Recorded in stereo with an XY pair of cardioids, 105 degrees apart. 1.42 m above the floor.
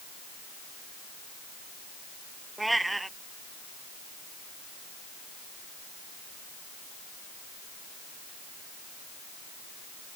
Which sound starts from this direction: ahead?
A cat meowing, at 2.6 s.